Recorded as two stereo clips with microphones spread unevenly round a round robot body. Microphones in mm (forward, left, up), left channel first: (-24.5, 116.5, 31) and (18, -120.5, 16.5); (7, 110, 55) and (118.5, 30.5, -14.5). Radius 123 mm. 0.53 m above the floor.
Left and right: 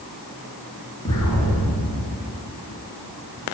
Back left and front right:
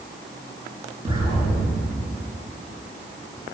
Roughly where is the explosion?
Ahead left.